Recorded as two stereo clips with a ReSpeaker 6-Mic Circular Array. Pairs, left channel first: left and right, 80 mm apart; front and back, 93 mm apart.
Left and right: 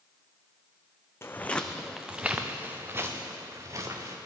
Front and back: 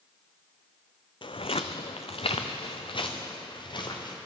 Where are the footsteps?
30° left, 0.7 m; by 4.2 s 40° right, 2 m.